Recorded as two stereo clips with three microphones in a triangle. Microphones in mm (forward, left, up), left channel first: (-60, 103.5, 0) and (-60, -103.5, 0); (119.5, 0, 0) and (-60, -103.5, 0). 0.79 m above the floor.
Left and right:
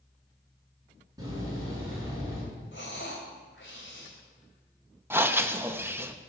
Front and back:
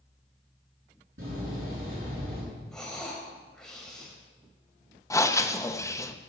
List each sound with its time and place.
1.2 s a door slam: 165° right, 8 m
2.7 s breathing: 115° left, 3 m
5.1 s breathing: 25° right, 0.8 m